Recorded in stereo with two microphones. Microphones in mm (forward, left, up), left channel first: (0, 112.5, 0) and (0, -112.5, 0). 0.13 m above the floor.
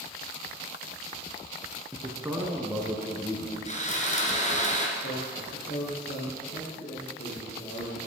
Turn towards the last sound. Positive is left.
turn(degrees=55)  # may be behind; listen again after turning